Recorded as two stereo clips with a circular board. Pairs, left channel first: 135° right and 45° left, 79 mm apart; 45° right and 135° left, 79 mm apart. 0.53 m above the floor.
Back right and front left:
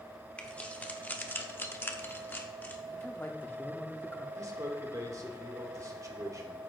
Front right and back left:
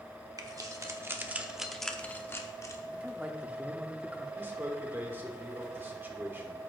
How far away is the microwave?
I don't hear a microwave.